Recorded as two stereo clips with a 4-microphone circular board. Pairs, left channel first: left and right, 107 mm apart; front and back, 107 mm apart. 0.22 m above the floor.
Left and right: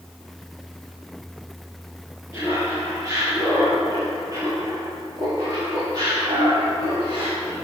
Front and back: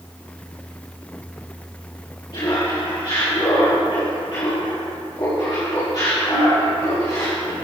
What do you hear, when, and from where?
2.3 s laughter: 30° right, 5 m; by 7.5 s 45° right, 9 m